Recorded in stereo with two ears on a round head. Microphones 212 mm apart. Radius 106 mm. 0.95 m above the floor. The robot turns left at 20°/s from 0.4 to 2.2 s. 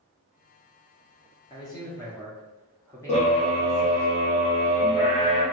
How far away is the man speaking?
About 0.8 m.